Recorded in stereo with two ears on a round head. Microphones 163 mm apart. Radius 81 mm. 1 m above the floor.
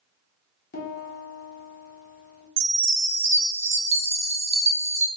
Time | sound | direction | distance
0.7 | a piano | 50° left (ahead or behind) | 1.3 m
2.6 | a chime | 35° right (ahead or behind) | 0.8 m